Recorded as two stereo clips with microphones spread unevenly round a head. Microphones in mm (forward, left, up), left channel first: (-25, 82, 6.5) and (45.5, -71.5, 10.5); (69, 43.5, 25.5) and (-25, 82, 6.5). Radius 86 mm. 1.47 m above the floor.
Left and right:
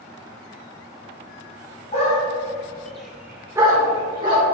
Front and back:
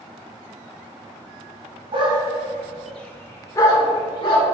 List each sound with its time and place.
1.9 s a dog barking: 145° left, 1.3 m; by 4.4 s 5° right, 2 m